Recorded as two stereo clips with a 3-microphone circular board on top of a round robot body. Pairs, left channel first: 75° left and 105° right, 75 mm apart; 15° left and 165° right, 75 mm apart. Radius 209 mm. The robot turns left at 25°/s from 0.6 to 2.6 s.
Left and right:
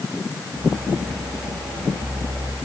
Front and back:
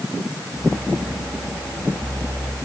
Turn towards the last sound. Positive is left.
No sound to turn to.